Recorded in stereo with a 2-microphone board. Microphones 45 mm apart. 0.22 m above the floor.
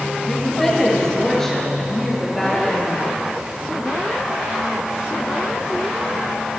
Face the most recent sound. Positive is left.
turn(degrees=5)  # may be behind; listen again after turning